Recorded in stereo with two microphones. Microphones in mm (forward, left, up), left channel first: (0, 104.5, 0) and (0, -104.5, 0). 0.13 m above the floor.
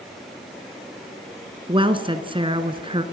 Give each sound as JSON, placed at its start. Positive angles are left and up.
{"t": 1.7, "sound": "a woman speaking", "side_deg": -25, "distance_m": 1.4}